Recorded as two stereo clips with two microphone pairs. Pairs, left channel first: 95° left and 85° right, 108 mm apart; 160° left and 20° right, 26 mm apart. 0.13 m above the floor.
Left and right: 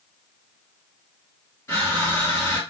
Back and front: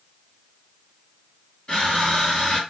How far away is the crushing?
About 2 m.